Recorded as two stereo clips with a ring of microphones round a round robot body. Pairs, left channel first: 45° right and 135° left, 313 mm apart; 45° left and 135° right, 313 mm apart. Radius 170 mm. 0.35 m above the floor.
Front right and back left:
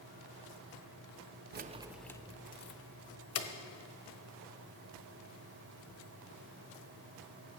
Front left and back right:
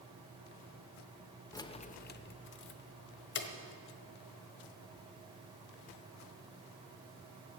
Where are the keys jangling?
115° left, 0.6 m; by 3.5 s 5° right, 1.4 m.